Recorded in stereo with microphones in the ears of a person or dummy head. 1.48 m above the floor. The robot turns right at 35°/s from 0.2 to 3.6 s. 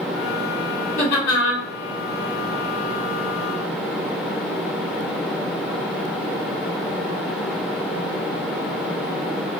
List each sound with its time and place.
1.0 s laughter: 50° left (ahead or behind), 2.5 m; by 1.6 s 75° left (ahead or behind), 2.5 m